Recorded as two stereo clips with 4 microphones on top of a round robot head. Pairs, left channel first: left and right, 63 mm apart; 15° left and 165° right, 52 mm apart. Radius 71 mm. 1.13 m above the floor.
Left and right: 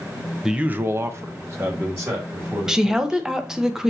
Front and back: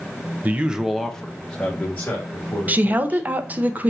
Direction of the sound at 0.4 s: 165° right.